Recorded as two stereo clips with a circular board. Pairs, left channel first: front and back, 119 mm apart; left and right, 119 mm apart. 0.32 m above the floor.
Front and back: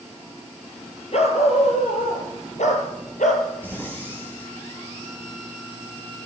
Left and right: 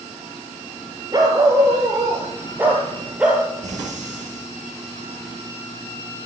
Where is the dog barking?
30° right, 3 m; by 3.5 s 5° right, 3 m.